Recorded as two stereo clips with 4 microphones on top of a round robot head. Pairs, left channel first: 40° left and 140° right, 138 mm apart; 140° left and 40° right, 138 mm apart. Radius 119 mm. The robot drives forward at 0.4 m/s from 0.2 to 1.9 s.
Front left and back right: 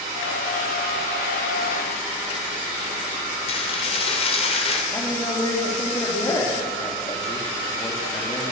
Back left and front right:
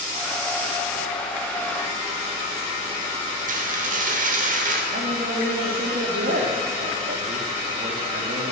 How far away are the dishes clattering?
About 2.5 m.